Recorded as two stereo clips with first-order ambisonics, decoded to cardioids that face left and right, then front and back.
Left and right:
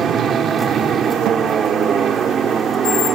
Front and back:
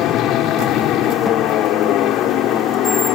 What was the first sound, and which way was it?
An aircraft, 30° right.